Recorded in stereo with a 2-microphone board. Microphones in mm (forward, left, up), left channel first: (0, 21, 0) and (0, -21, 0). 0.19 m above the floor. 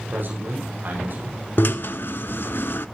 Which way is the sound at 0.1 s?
50° right (ahead or behind).